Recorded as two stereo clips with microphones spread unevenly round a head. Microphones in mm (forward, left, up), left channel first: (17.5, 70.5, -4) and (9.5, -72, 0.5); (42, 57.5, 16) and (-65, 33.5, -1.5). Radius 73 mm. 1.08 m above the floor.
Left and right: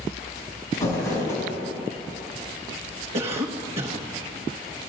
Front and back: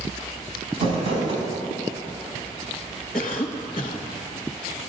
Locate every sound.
0.7 s crumpling: 160° left, 4 m
3.1 s a cough: 45° right, 1.1 m